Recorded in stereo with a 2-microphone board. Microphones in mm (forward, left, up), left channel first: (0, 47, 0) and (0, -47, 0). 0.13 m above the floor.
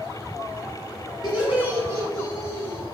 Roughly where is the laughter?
Centre.